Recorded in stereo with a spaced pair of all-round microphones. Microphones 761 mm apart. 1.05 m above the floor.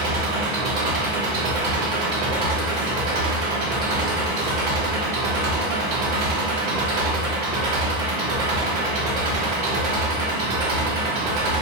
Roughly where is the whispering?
I don't hear whispering.